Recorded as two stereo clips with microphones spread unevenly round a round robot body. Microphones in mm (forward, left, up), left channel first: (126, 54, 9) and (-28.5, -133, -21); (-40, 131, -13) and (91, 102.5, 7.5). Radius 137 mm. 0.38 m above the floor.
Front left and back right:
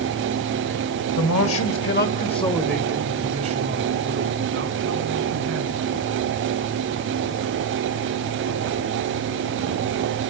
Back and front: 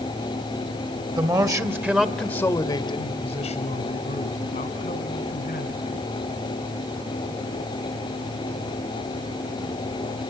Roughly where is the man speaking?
Ahead left.